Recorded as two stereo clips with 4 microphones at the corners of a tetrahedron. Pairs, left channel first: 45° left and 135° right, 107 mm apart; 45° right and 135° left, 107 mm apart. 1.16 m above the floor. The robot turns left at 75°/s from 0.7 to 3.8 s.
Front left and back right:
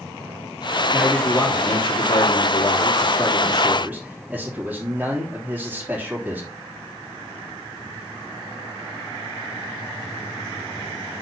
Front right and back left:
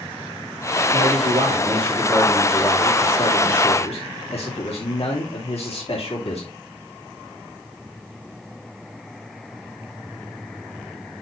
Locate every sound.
0.9 s a man speaking: 155° left, 3.5 m; by 6.5 s 60° right, 3.5 m